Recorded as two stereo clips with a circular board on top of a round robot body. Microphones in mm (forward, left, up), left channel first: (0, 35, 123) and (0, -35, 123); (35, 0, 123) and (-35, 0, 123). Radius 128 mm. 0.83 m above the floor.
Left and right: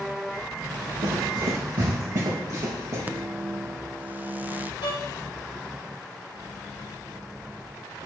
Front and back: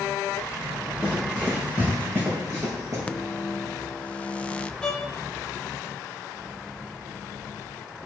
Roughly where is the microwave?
Ahead right.